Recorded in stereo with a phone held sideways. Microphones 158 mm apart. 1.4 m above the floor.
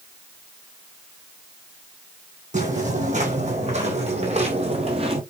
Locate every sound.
2.5 s footsteps: 50° right (ahead or behind), 3.5 m; by 5.2 s 35° right (ahead or behind), 2 m